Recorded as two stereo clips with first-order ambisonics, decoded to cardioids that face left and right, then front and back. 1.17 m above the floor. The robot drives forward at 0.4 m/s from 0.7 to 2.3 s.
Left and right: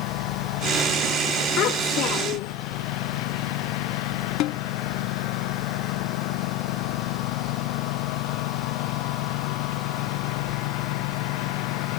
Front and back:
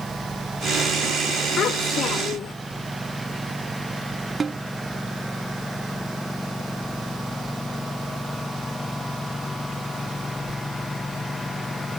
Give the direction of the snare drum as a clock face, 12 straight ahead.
8 o'clock.